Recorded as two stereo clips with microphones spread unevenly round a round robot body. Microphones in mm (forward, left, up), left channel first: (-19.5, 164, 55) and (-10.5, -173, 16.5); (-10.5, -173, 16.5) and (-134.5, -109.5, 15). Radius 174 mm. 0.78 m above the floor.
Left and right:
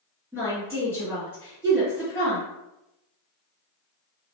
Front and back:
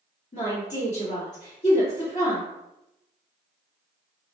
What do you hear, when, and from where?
0.3 s a woman speaking: 5° left, 1.6 m